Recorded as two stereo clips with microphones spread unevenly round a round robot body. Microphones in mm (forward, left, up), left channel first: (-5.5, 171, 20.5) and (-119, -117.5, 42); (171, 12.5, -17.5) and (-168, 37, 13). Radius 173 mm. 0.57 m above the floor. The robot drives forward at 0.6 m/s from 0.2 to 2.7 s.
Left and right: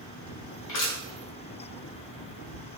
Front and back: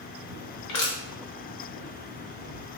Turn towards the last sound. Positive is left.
turn(degrees=115)